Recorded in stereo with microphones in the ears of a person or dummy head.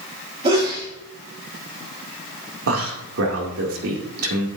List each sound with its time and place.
0.4 s a sneeze: 30° right (ahead or behind), 3.5 m
2.7 s a man speaking: 70° right (ahead or behind), 2 m